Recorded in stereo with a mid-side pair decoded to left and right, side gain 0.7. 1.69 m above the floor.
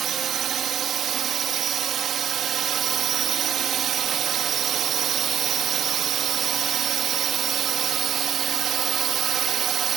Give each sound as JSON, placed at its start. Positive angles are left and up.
{"t": 0.0, "sound": "a drone", "azimuth_deg": -40}